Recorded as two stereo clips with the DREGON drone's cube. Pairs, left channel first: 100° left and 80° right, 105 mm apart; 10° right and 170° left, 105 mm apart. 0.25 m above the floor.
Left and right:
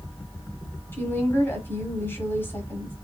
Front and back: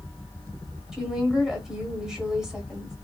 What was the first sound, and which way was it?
A woman speaking, 95° left.